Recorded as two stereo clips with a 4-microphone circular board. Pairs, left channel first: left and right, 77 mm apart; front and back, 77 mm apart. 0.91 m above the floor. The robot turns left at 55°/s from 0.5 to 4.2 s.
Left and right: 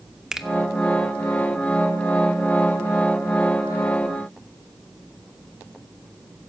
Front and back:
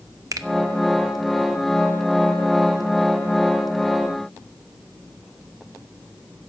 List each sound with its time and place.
0.3 s a finger snap: 170° right, 0.7 m